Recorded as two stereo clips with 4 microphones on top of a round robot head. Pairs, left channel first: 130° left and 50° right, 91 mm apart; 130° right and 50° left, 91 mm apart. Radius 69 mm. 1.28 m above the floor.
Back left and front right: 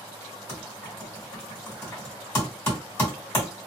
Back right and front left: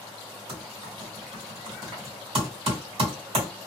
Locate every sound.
0.5 s typing on a keyboard: 60° left, 1.6 m